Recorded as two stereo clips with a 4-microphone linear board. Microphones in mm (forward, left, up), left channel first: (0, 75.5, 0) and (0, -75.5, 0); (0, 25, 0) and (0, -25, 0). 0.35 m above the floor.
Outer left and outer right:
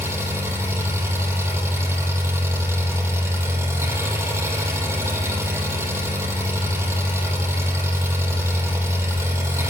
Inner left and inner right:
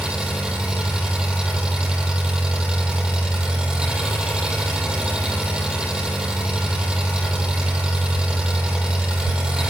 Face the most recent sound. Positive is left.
turn(degrees=-15)  # may be behind; listen again after turning